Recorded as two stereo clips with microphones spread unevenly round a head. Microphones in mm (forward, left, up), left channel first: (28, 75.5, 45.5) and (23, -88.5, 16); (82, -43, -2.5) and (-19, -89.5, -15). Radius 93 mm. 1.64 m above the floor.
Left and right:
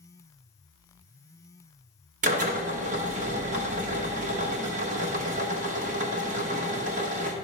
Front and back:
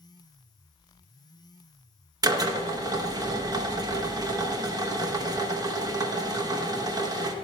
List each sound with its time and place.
2.2 s a drill: 130° right, 1.0 m